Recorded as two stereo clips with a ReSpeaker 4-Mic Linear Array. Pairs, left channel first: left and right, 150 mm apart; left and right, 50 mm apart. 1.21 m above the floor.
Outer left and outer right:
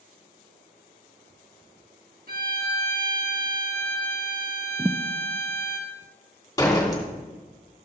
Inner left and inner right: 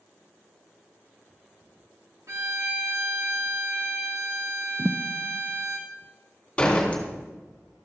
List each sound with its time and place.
2.3 s a violin: 80° right, 1.7 m
4.8 s a thud: 20° right (ahead or behind), 0.5 m
6.6 s a door slam: 25° left (ahead or behind), 2.5 m